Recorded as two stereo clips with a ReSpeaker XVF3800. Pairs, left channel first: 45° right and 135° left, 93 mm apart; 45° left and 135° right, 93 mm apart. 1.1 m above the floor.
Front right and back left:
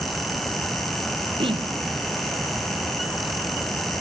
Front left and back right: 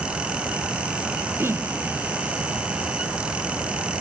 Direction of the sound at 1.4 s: 160° left.